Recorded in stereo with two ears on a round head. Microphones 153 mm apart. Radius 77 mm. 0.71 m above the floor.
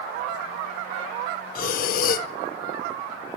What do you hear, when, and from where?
1.6 s breathing: 50° left (ahead or behind), 0.5 m